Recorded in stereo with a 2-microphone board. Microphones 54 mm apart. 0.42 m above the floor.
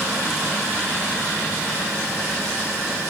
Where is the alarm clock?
No alarm clock in this recording.